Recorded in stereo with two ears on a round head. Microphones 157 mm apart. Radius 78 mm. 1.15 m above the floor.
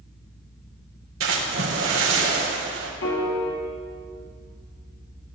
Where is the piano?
75° left (ahead or behind), 2.5 m.